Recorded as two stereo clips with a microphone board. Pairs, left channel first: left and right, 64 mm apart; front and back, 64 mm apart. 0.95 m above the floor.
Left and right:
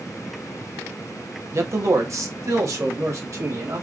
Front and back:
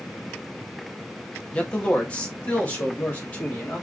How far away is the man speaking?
About 1.4 m.